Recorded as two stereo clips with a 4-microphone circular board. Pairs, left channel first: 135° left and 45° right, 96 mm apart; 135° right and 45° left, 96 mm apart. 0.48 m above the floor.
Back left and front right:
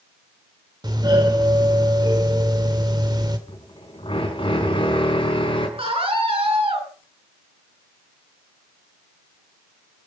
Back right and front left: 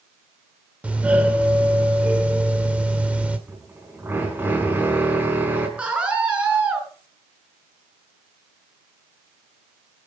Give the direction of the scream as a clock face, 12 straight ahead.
1 o'clock.